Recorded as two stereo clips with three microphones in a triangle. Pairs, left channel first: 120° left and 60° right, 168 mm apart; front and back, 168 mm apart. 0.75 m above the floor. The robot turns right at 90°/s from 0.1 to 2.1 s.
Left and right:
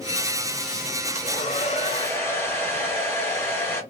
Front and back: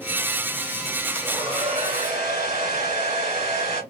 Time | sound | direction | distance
1.1 | a hair dryer | 105° left | 1.5 m